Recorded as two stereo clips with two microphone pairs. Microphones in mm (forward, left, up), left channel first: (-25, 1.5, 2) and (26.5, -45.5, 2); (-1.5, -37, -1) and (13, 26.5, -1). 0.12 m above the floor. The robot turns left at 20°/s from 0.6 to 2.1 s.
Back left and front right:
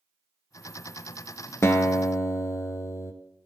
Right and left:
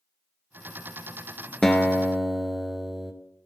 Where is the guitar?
175° left, 0.7 m; by 3.1 s 165° left, 0.7 m.